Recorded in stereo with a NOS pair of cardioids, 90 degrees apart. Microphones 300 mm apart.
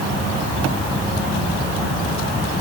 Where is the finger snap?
I don't hear a finger snap.